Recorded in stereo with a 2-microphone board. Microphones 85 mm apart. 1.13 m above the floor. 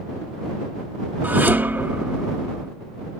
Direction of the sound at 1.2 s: 25° right (ahead or behind).